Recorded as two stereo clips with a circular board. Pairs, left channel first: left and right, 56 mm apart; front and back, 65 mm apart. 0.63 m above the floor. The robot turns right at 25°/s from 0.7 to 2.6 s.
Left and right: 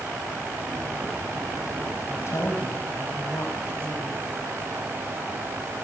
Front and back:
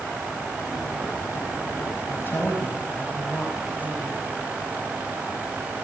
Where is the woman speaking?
50° left, 5 m; by 4.2 s 60° left, 5 m.